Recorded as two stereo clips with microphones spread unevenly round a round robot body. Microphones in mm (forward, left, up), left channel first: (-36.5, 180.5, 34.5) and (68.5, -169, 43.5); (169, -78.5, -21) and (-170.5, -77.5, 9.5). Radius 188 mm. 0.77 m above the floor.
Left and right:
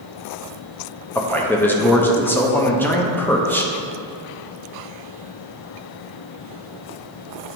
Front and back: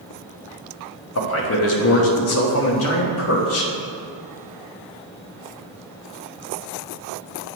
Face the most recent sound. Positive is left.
turn(degrees=25)